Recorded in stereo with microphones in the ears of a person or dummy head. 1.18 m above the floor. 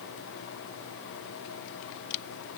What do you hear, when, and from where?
Only background noise.